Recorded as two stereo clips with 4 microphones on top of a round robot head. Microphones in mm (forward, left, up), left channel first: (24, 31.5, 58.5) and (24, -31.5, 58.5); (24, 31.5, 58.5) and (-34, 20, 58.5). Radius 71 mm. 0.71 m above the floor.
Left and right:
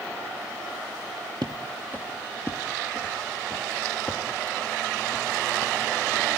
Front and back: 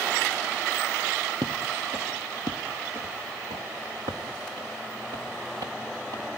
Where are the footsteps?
140° right, 1.1 m; by 6.4 s 175° left, 4 m.